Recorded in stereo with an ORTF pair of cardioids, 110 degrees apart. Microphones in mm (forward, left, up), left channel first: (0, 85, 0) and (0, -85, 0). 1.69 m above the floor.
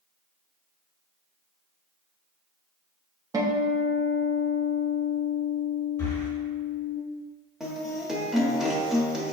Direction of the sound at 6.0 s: 15° left.